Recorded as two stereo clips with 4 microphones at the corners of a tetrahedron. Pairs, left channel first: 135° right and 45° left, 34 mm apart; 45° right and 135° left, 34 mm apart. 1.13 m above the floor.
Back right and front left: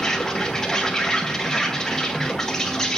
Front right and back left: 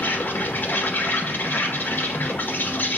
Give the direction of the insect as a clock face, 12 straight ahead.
2 o'clock.